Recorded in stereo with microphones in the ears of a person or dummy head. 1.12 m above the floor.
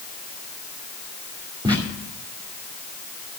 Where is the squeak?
25° right (ahead or behind), 2.5 m.